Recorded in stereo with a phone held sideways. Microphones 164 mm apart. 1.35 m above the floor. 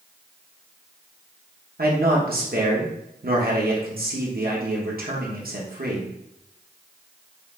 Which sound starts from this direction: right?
A man speaking, at 1.8 s.